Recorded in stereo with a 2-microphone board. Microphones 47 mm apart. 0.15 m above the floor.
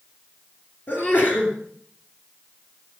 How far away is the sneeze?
About 2.5 m.